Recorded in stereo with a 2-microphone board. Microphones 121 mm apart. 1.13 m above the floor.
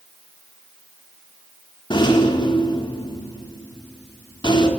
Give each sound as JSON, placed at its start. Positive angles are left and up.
{"t": 1.9, "sound": "a rattle", "side_deg": 40, "distance_m": 4.0}